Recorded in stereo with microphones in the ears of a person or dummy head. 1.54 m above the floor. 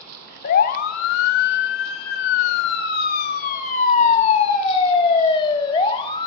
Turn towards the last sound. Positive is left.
turn(degrees=25)  # may be behind; listen again after turning